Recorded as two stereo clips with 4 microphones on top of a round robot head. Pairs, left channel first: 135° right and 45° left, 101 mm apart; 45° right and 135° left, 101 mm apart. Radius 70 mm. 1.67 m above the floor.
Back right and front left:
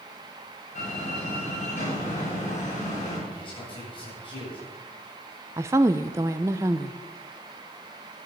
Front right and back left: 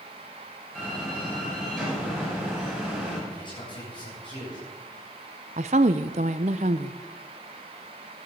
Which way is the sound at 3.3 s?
90° right.